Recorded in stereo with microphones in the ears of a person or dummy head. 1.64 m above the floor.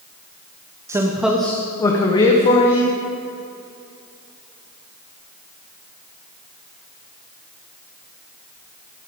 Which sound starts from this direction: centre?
A man speaking, at 0.9 s.